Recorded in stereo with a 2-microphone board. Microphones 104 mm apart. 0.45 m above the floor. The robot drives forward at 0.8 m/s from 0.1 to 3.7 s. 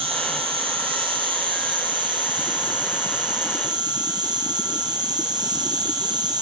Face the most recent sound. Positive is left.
turn(degrees=-40)  # may be behind; listen again after turning